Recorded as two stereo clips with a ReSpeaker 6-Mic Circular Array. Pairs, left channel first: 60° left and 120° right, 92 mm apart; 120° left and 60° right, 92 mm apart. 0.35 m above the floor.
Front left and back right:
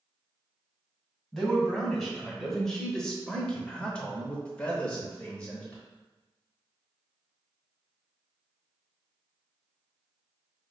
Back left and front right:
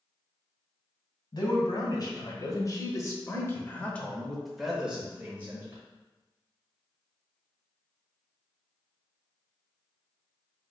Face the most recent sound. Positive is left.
turn(degrees=-10)